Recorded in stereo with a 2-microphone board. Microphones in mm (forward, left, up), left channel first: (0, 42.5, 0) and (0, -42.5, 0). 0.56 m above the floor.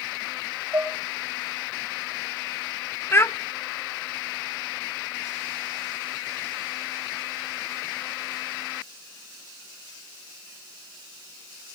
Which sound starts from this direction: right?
Dishes clattering, at 0.7 s.